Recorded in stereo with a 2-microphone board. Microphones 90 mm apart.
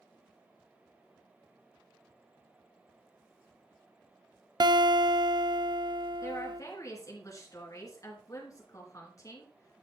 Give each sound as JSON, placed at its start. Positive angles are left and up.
{"t": 4.6, "sound": "a guitar", "side_deg": -55, "distance_m": 0.5}
{"t": 6.2, "sound": "a woman speaking", "side_deg": 35, "distance_m": 3.0}